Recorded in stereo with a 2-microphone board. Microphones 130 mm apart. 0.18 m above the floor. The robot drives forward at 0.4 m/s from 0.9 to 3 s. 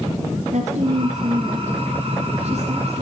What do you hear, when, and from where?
0.5 s a woman speaking: 65° right (ahead or behind), 2.5 m; by 3.0 s 60° right (ahead or behind), 2.5 m